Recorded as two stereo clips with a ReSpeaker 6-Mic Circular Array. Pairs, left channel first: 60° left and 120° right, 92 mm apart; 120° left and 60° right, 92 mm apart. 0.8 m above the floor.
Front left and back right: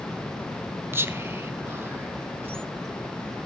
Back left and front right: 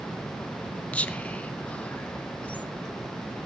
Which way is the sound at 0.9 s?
170° right.